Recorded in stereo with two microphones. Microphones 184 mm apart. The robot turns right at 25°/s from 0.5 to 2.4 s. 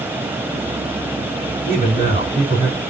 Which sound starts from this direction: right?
A man speaking, at 1.7 s.